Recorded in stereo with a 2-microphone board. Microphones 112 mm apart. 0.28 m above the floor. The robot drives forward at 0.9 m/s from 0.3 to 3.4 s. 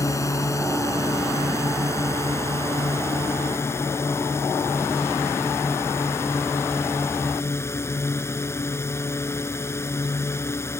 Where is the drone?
25° left (ahead or behind).